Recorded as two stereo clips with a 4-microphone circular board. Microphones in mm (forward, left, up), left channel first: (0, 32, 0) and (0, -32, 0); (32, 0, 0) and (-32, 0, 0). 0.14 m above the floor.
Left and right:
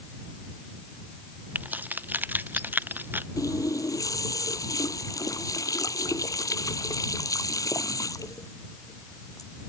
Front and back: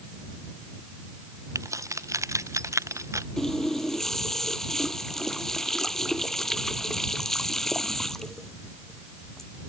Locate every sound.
1.6 s keys jangling: 150° right; by 3.3 s 145° right
3.4 s a running tap: 85° left